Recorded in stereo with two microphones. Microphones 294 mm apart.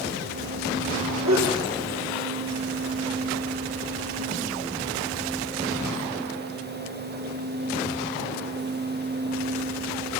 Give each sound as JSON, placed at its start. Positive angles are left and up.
{"t": 1.2, "sound": "a sneeze", "side_deg": -70, "distance_m": 4.5}